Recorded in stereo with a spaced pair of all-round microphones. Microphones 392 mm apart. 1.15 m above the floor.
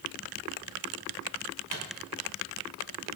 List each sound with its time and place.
1.7 s a microwave: 65° left (ahead or behind), 4.5 m